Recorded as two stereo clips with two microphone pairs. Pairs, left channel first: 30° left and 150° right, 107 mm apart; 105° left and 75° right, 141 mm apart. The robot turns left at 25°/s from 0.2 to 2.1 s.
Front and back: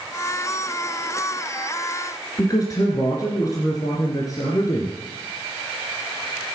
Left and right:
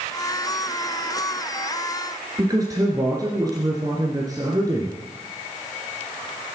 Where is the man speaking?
15° right, 2.5 m.